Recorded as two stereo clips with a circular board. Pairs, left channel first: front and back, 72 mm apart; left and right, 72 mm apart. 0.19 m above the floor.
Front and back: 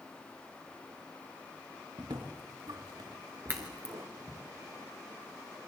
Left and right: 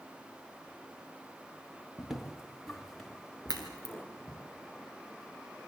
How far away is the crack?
About 4 m.